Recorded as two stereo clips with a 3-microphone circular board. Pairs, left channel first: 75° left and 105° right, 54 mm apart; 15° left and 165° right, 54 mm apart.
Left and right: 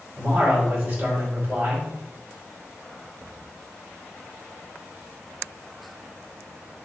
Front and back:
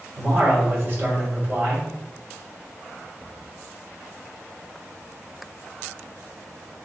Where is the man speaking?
145° right, 1.7 m.